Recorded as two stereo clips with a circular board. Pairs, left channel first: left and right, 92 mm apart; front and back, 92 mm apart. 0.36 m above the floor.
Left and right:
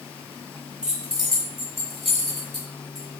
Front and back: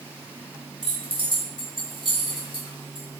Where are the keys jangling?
170° right, 1.3 m; by 3.0 s 175° left, 2.5 m.